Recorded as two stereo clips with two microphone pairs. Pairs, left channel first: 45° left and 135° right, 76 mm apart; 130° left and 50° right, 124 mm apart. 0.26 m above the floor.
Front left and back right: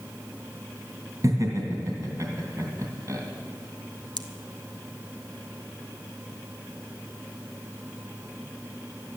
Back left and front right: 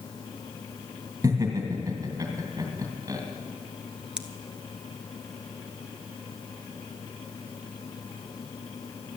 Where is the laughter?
115° right, 2 m.